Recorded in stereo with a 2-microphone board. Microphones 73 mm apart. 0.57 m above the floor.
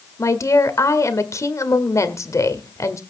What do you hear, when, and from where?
0.2 s a woman speaking: 50° left (ahead or behind), 1.7 m